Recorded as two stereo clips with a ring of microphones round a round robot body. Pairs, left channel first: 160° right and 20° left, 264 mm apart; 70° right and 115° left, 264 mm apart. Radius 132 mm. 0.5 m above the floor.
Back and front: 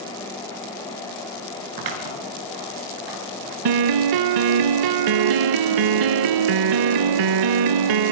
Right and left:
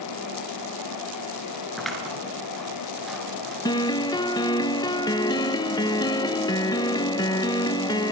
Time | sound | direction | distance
1.8 | scissors | 20° left | 7 m
3.6 | a piano | 10° left | 0.5 m